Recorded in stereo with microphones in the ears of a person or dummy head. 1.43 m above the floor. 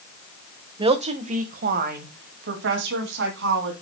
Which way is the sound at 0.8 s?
25° right (ahead or behind).